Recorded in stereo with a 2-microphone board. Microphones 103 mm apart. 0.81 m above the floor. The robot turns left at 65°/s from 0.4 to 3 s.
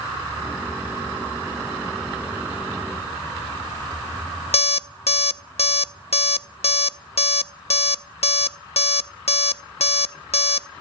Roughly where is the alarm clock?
Left.